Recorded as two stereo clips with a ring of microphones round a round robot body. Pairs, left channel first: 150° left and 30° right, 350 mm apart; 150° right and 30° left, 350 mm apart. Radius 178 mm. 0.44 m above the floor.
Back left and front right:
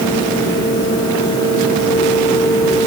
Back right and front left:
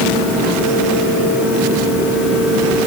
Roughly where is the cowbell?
No cowbell in this recording.